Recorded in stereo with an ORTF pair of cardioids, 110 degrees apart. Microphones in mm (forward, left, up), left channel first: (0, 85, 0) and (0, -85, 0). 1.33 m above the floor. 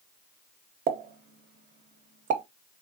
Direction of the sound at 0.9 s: 55° right.